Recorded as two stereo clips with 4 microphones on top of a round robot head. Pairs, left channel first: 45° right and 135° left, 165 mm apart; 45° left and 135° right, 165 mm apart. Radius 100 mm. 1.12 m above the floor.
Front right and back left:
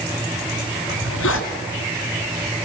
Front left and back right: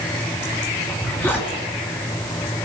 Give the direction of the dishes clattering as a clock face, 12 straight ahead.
No dishes clattering in this recording.